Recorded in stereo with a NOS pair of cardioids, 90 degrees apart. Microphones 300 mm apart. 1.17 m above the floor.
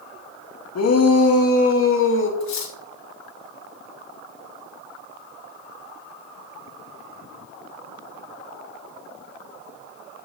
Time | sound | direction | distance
0.8 | a shout | 60° left | 2 m
2.4 | cutlery clinking | 65° left | 2 m